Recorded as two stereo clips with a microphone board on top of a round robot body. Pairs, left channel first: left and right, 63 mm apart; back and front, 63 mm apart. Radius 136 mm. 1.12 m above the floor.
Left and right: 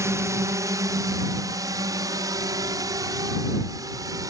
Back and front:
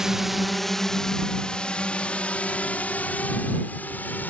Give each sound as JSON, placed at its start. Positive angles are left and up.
{"t": 0.0, "sound": "a drone", "azimuth_deg": -80}